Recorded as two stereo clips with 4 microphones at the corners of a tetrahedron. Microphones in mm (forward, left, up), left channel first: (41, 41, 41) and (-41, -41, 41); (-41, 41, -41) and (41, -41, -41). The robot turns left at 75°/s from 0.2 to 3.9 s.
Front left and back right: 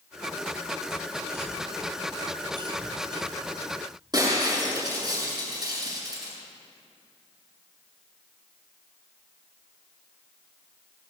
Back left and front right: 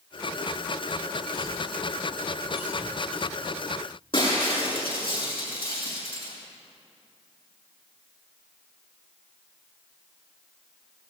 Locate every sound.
1.3 s a cough: 15° right, 2 m; by 3.2 s 160° right, 2 m
4.1 s breaking glass: 170° left, 7.5 m